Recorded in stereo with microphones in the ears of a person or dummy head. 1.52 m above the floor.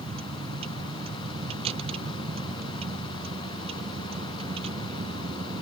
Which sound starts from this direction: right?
A vehicle, at 0.0 s.